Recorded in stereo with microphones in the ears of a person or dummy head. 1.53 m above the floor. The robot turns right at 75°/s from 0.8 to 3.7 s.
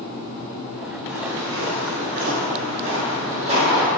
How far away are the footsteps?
About 2 m.